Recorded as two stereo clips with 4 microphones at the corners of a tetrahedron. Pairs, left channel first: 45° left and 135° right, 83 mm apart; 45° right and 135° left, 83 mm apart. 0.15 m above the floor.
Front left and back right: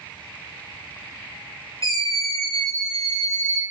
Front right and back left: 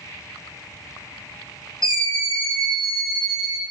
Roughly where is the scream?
Left.